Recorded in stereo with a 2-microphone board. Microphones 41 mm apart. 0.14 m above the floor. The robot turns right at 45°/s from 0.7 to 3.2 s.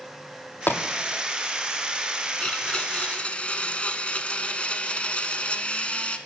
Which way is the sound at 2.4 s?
55° left.